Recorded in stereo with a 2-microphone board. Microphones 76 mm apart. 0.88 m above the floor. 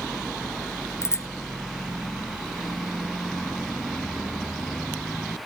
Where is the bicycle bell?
35° left (ahead or behind).